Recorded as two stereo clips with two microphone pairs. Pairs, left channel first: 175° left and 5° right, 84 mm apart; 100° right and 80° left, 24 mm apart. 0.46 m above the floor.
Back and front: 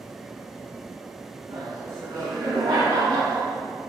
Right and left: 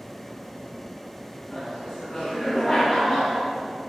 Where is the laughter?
35° right, 3.5 m.